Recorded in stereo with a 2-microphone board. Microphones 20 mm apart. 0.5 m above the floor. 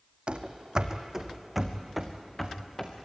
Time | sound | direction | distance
0.3 | running footsteps | 55° right (ahead or behind) | 1.4 m